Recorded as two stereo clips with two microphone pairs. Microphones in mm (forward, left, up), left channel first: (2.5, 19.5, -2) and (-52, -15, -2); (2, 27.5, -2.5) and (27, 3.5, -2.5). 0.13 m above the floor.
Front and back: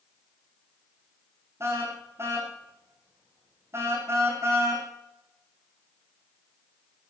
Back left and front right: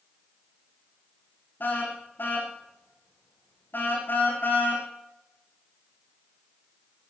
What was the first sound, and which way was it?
A car horn, 160° left.